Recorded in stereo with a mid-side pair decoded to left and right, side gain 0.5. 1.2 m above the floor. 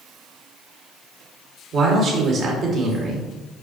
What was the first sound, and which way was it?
A man speaking, 55° right.